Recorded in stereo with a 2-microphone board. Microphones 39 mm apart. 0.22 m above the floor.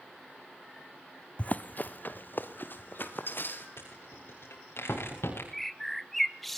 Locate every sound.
1.4 s running footsteps: 35° left (ahead or behind), 0.7 m; by 3.7 s 55° left (ahead or behind), 4 m
3.8 s a rattle: 80° left, 7.5 m
5.5 s a bird: 5° left (ahead or behind), 0.7 m